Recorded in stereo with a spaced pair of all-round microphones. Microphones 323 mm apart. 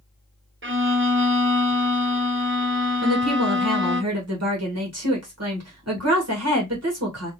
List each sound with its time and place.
0.6 s a violin: 40° right (ahead or behind), 0.7 m
3.0 s a woman speaking: 50° right (ahead or behind), 1.2 m